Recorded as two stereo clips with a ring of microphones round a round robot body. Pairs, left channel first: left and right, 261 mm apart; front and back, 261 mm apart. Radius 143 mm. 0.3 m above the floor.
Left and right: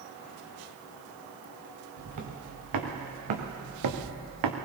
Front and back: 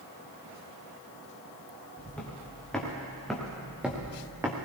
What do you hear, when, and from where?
2.0 s footsteps: 85° right, 3.5 m; by 4.6 s 100° right, 1.7 m